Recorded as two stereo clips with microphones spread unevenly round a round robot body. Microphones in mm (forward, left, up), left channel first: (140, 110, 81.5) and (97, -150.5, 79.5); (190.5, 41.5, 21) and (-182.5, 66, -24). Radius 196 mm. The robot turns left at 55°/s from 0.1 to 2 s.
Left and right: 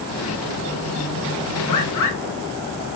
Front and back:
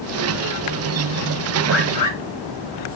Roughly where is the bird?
Left.